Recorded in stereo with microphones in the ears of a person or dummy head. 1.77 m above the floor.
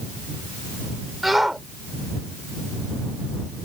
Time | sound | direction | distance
1.2 | a shout | centre (ahead or behind) | ?